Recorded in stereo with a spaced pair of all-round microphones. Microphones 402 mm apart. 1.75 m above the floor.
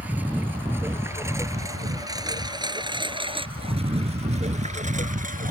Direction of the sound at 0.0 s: 5° right (ahead or behind).